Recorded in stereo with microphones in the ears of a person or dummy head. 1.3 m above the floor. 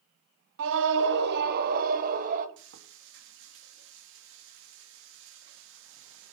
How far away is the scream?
About 0.8 m.